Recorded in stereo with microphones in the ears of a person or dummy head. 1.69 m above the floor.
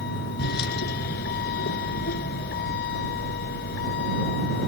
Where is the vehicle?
55° left (ahead or behind).